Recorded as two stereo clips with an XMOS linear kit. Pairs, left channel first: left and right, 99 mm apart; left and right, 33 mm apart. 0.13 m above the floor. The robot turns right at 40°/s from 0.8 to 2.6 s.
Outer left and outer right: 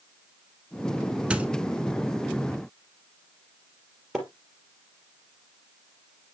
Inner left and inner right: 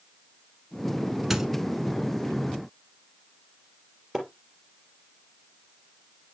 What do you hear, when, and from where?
1.3 s a squeak: 10° right (ahead or behind), 0.9 m
4.1 s a splash: centre (ahead or behind), 3 m